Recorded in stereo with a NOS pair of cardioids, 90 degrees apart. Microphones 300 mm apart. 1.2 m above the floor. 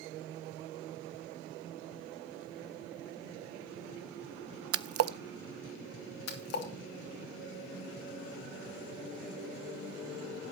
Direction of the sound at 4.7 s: 50° right.